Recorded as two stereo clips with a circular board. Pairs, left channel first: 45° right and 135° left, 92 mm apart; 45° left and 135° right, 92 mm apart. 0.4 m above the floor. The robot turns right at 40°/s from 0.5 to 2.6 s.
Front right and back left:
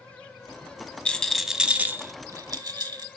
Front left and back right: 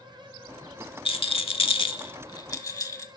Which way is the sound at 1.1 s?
30° left.